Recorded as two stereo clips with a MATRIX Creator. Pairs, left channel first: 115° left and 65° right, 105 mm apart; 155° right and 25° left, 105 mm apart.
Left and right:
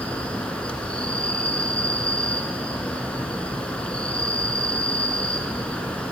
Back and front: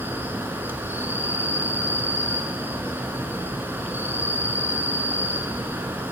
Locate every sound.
0.0 s an insect: 55° left, 0.9 m